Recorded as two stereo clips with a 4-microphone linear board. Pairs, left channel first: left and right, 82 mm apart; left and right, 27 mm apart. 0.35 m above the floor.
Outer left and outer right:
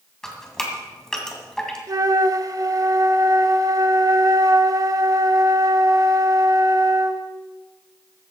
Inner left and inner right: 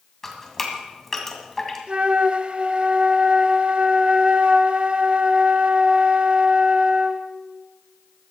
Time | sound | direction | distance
0.2 | dripping | 5° left (ahead or behind) | 2 m
1.9 | a flute | 45° right (ahead or behind) | 0.6 m